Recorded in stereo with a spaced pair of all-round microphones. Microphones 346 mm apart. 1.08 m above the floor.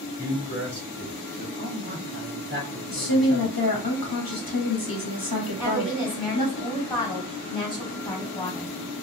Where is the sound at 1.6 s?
25° right (ahead or behind), 1.2 m.